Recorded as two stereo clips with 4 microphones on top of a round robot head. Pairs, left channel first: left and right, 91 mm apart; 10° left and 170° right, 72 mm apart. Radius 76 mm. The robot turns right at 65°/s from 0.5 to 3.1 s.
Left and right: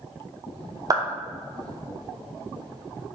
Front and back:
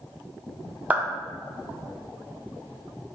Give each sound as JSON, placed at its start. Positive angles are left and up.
{"t": 0.9, "sound": "a clap", "azimuth_deg": -110, "distance_m": 1.0}